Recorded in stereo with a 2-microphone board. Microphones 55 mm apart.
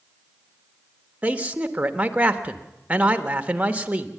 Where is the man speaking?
25° right (ahead or behind), 1.3 m.